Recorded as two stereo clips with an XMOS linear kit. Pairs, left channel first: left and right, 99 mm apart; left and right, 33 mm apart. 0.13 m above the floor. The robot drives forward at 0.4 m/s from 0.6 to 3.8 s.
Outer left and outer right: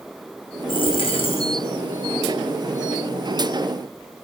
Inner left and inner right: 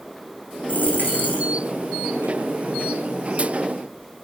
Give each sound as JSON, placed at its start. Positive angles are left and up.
{"t": 0.7, "sound": "a dropped coin", "side_deg": 60, "distance_m": 3.5}